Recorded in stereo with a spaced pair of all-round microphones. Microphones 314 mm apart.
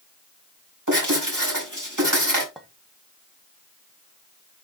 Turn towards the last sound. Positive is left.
turn(degrees=0)  # may be behind; listen again after turning